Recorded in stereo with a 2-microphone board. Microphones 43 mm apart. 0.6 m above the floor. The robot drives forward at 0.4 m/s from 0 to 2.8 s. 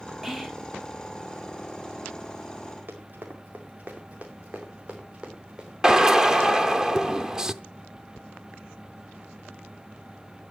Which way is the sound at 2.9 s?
45° right (ahead or behind).